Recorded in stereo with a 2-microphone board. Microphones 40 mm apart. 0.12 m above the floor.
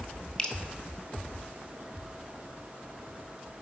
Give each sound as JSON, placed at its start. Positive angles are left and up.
{"t": 0.4, "sound": "dripping", "side_deg": 20, "distance_m": 0.8}